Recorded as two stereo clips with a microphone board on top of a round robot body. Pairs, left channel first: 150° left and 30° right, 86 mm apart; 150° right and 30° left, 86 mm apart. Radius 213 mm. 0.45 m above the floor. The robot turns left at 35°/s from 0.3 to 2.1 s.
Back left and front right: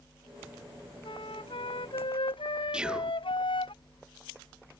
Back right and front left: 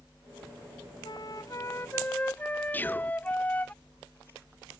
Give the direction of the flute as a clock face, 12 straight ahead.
6 o'clock.